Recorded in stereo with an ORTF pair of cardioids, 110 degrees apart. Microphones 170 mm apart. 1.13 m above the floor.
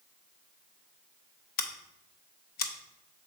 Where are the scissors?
65° left, 0.8 m.